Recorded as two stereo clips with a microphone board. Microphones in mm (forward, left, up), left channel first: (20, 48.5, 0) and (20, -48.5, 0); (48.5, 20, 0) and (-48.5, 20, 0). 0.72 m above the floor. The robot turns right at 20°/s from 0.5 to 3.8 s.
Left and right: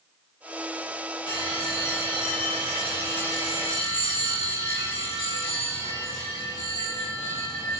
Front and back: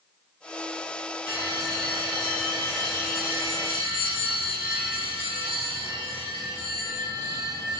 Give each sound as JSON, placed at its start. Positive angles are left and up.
{"t": 1.3, "sound": "a bell", "azimuth_deg": 55, "distance_m": 1.5}